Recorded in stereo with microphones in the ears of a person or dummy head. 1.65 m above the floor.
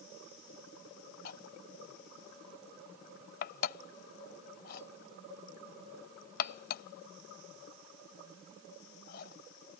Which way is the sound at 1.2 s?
55° left (ahead or behind).